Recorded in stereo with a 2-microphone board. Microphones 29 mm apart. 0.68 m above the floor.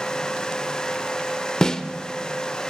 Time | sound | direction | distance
1.6 | a snare drum | 25° left (ahead or behind) | 0.7 m